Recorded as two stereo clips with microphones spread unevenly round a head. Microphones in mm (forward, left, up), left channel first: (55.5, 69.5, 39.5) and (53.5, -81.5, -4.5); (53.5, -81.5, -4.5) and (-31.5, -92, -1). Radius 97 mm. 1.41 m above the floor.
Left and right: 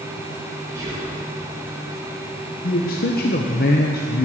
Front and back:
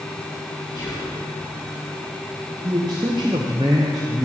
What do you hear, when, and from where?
0.8 s whispering: 20° right, 1.7 m
2.6 s a man speaking: 130° left, 0.6 m